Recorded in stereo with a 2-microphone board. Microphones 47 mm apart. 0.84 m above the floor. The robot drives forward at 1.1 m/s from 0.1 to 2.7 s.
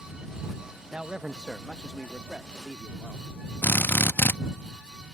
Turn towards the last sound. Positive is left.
turn(degrees=50)  # may be behind; listen again after turning